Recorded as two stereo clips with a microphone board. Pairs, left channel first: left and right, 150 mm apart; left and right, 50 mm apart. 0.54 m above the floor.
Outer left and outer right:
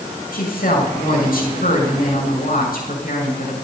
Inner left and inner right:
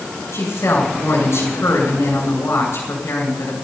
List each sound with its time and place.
0.3 s a woman speaking: 70° left (ahead or behind), 7 m